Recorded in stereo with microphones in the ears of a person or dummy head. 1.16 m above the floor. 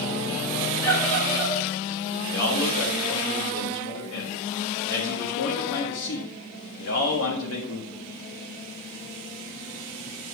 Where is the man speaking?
85° left, 1.7 m.